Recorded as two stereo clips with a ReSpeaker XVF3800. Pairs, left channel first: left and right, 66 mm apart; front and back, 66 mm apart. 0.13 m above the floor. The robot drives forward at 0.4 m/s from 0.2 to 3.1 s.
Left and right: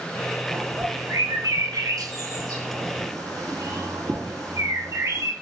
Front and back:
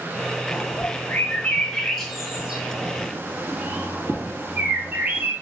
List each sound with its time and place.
0.5 s a bird: 50° right, 1.0 m; by 5.3 s 115° right, 0.9 m